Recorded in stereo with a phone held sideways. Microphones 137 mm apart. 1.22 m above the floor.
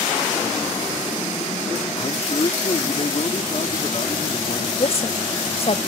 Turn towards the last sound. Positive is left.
turn(degrees=45)  # may be behind; listen again after turning